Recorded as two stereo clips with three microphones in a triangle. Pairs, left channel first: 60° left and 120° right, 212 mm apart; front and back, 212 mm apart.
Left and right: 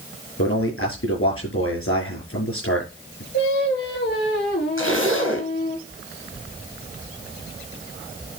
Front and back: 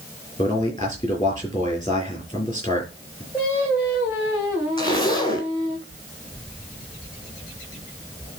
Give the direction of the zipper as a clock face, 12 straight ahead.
10 o'clock.